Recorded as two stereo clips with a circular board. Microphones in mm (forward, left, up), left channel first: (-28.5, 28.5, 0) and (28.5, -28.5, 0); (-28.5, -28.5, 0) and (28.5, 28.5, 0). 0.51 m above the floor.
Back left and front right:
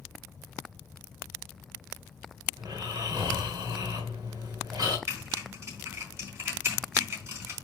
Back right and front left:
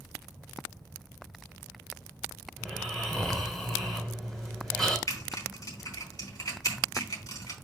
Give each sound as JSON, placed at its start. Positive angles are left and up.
{"t": 2.6, "sound": "snoring", "azimuth_deg": -50, "distance_m": 2.5}
{"t": 5.1, "sound": "typing on a keyboard", "azimuth_deg": -100, "distance_m": 4.0}